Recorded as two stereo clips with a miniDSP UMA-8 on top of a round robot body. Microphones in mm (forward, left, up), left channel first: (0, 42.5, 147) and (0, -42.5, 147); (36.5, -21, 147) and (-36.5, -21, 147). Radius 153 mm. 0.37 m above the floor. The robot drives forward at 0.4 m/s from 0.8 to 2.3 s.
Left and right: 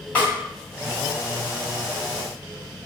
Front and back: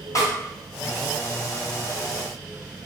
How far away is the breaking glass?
No breaking glass in this recording.